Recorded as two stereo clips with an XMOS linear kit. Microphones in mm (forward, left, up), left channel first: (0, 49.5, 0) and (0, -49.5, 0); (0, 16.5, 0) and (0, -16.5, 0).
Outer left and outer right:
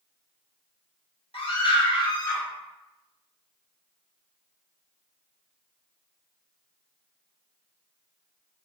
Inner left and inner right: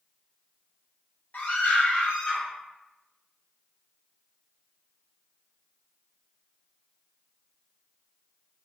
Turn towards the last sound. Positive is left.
turn(degrees=35)  # may be behind; listen again after turning